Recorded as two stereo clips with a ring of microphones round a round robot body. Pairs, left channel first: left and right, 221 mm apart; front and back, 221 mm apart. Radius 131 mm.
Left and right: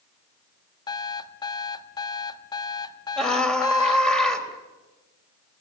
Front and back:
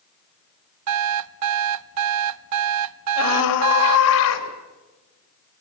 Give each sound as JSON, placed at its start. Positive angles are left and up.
{"t": 0.9, "sound": "an alarm clock", "azimuth_deg": 165, "distance_m": 0.6}
{"t": 3.2, "sound": "a scream", "azimuth_deg": 5, "distance_m": 4.0}